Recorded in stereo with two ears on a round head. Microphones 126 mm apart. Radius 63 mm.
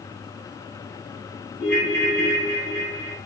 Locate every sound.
1.6 s a ringtone: 70° left (ahead or behind), 1.4 m